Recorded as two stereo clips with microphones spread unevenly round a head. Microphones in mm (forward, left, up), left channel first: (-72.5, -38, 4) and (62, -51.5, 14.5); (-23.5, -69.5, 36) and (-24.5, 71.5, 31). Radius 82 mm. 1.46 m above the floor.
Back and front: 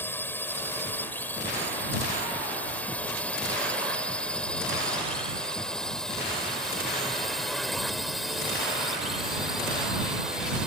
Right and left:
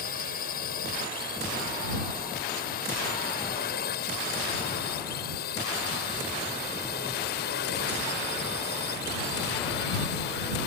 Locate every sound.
0.0 s a drone: 110° right; by 10.7 s 90° right